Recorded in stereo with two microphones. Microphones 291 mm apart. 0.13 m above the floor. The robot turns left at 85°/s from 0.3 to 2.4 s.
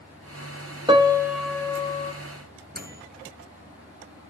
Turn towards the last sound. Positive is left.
turn(degrees=-30)  # may be behind; listen again after turning